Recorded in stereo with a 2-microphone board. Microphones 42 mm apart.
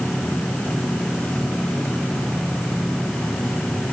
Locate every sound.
Only background noise.